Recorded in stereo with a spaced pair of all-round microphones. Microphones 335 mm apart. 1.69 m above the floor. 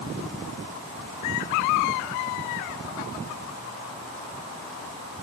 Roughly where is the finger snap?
No finger snap in this recording.